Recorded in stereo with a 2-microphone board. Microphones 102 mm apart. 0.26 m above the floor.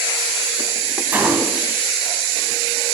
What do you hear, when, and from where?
1.1 s a gunshot: 20° right (ahead or behind), 1.1 m